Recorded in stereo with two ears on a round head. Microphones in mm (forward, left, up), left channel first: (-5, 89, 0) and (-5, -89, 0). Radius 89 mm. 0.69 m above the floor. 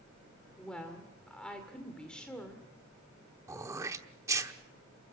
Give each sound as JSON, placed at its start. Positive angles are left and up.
{"t": 0.6, "sound": "a woman speaking", "side_deg": 5, "distance_m": 2.0}
{"t": 3.5, "sound": "throat clearing", "side_deg": -15, "distance_m": 1.0}